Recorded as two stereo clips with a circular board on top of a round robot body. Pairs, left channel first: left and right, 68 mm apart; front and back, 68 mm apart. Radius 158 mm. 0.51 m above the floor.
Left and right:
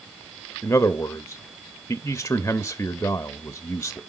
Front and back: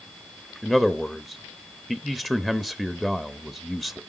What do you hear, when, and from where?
0.6 s a man speaking: 85° left, 0.8 m